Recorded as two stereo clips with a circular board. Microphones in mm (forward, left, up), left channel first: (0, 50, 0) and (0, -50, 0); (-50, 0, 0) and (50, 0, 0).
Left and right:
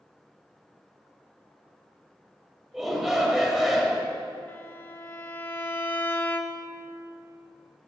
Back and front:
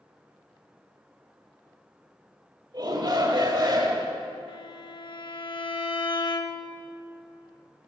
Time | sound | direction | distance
2.7 | a shout | straight ahead | 1.5 m
4.5 | a violin | 155° left | 0.5 m